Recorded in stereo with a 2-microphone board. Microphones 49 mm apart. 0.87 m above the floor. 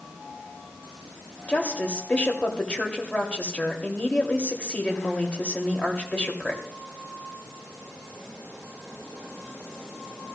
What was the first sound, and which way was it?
A woman speaking, 25° left (ahead or behind).